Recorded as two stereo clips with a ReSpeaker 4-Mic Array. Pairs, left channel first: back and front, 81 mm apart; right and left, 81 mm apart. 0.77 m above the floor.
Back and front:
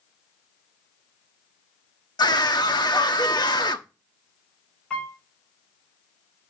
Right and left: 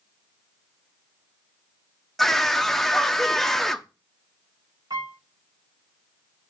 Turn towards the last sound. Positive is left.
turn(degrees=105)